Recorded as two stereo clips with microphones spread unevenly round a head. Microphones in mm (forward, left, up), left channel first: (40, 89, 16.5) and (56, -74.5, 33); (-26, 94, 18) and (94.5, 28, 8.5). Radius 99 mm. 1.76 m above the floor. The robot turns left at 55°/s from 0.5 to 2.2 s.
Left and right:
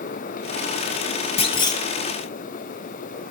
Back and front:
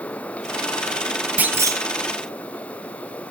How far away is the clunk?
About 1.3 m.